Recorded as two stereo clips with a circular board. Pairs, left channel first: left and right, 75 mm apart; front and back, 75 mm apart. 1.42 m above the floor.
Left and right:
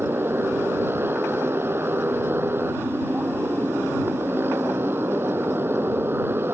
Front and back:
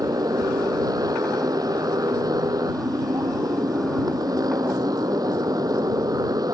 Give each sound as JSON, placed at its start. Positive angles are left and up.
{"t": 0.0, "sound": "a motorcycle", "azimuth_deg": -150}